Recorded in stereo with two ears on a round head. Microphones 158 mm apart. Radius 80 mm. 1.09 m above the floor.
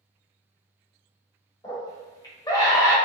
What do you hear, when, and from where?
1.6 s a scream: 20° left (ahead or behind), 1.2 m